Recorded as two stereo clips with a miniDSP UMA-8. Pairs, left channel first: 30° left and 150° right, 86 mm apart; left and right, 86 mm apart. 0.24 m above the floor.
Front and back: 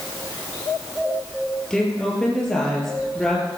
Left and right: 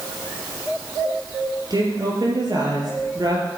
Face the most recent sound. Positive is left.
turn(degrees=-55)